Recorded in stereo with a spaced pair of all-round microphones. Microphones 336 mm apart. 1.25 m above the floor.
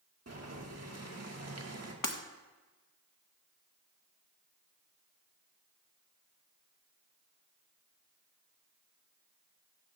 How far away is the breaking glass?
About 1.0 m.